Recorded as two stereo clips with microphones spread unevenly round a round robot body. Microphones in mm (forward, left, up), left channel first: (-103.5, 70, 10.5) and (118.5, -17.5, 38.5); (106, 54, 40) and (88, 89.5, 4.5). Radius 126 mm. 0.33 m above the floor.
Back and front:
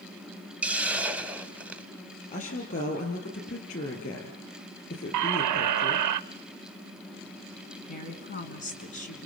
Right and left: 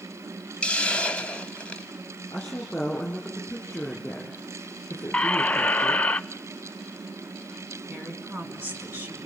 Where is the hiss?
70° left, 1.0 m.